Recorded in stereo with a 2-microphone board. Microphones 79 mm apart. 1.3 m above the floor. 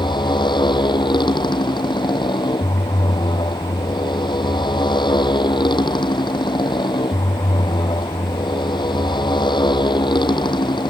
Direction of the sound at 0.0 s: 75° left (ahead or behind).